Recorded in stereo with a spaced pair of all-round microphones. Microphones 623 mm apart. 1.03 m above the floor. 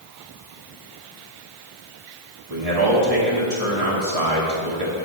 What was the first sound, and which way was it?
A man speaking, 65° right (ahead or behind).